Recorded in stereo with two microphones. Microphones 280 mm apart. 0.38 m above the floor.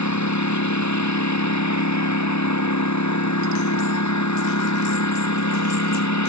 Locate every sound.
0.0 s a lawn mower: 80° left